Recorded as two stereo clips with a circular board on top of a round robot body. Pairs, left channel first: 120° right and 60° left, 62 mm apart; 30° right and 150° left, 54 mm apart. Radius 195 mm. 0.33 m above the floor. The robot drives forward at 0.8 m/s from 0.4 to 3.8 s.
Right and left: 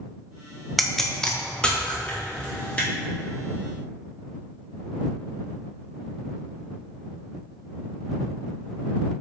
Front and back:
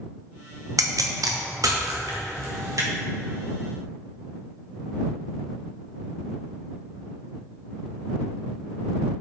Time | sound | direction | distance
0.8 | a pop | 150° left | 0.9 m